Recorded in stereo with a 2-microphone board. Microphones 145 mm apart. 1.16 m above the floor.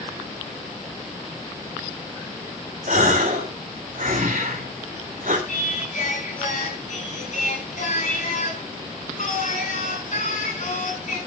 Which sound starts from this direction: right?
A gasp, at 2.9 s.